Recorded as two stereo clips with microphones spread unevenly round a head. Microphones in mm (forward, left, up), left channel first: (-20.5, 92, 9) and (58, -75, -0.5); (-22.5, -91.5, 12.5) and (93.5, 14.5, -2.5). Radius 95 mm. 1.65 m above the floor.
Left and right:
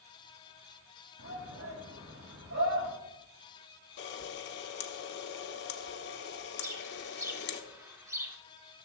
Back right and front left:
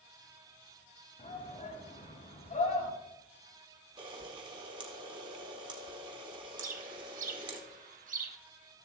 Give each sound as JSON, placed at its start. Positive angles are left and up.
{"t": 1.2, "sound": "a shout", "azimuth_deg": -90, "distance_m": 6.5}
{"t": 4.0, "sound": "a camera shutter", "azimuth_deg": 110, "distance_m": 1.2}
{"t": 6.6, "sound": "a bird", "azimuth_deg": 10, "distance_m": 1.3}